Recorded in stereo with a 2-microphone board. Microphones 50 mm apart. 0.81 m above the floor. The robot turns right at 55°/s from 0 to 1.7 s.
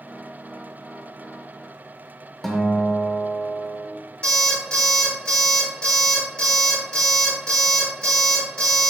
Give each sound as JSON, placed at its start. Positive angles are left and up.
{"t": 2.4, "sound": "a guitar", "side_deg": 5, "distance_m": 0.6}
{"t": 4.2, "sound": "an alarm clock", "side_deg": 20, "distance_m": 1.9}